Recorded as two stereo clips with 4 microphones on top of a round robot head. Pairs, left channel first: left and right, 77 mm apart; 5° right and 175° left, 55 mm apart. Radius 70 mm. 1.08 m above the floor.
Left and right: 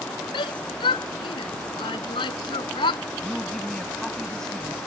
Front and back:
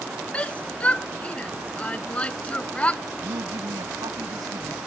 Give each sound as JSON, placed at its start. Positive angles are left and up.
{"t": 0.3, "sound": "a shout", "azimuth_deg": 65}
{"t": 3.2, "sound": "a woman speaking", "azimuth_deg": 170}